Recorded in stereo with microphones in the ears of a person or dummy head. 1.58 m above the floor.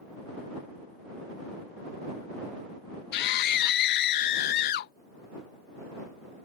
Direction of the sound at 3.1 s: 55° left (ahead or behind).